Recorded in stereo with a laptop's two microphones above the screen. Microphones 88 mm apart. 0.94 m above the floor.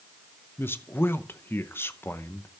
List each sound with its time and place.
0.6 s a man speaking: 25° left (ahead or behind), 0.8 m